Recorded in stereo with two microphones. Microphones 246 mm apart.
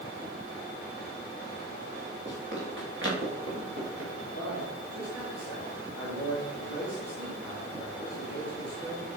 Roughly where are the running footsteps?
Right.